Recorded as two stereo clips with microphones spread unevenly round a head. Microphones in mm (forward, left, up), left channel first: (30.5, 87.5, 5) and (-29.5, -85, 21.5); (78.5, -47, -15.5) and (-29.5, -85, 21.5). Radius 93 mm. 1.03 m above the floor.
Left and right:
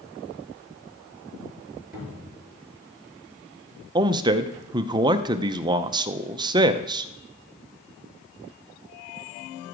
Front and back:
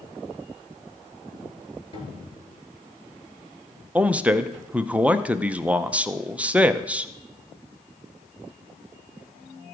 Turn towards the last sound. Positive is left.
turn(degrees=-55)